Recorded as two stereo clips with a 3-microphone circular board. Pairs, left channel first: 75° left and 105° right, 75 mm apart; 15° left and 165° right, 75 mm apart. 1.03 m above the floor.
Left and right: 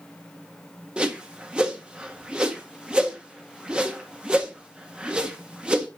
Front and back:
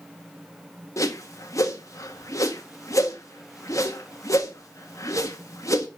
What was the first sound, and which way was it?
A whoosh, 30° right.